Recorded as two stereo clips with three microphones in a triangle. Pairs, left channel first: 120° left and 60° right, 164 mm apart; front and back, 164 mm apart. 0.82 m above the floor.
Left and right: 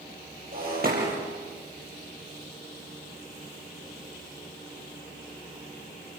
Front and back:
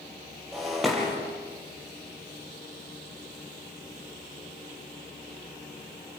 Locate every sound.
0.5 s breaking glass: 90° right, 6.5 m